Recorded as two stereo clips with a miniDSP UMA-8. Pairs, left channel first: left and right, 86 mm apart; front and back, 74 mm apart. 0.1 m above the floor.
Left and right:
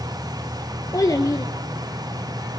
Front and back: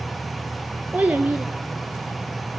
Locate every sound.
0.9 s a child speaking: 115° left, 1.2 m